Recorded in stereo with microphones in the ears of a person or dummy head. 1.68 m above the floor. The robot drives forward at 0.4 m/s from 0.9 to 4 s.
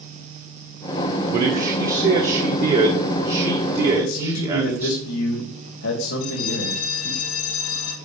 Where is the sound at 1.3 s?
50° right (ahead or behind), 1.3 m; by 5.0 s 25° right (ahead or behind), 2 m.